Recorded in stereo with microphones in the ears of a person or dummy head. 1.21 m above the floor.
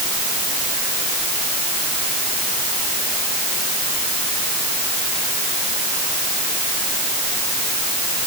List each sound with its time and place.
Only background noise.